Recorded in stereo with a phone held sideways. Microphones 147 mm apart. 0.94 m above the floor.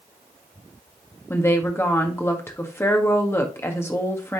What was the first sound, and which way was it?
A woman speaking, 15° left (ahead or behind).